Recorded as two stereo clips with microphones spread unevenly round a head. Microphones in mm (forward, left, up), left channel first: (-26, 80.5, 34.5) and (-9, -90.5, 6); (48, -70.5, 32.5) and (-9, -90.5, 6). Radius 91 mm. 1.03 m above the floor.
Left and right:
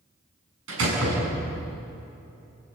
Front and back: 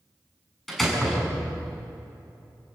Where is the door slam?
65° right, 7 m.